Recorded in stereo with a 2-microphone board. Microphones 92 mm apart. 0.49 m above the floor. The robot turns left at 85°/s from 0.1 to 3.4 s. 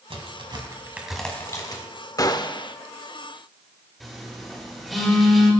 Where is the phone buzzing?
5° left (ahead or behind), 3.5 m.